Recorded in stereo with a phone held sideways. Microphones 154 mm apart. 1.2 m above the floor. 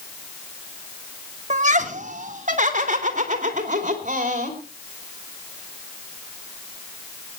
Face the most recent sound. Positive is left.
turn(degrees=-55)  # may be behind; listen again after turning